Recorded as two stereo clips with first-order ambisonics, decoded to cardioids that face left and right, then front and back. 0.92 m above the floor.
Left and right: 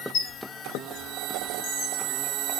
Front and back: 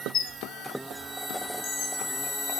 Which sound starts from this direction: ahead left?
A squeak, at 0.1 s.